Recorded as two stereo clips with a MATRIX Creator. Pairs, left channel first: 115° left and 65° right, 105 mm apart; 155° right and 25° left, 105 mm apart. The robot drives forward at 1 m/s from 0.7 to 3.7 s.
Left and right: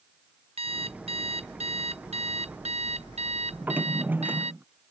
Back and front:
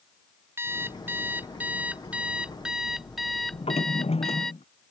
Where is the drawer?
140° right.